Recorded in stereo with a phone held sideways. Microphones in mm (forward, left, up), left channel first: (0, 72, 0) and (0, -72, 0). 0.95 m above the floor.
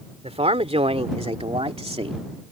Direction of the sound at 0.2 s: 50° right (ahead or behind).